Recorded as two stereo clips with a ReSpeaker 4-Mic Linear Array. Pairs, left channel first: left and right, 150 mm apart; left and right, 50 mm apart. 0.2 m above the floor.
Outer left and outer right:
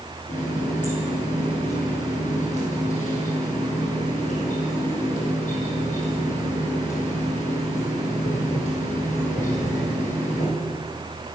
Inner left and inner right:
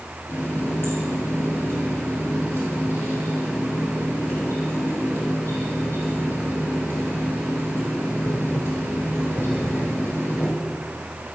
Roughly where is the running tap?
Left.